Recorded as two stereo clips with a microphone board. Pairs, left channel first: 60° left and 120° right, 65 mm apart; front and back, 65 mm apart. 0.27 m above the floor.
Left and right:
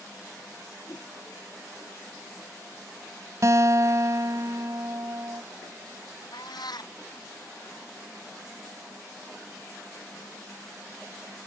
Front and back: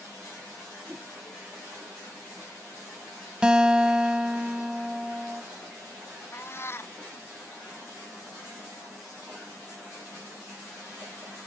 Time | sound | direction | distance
0.9 | a whoosh | 110° left | ?
3.4 | a guitar | 105° right | ?
6.3 | a cat meowing | 55° left | ?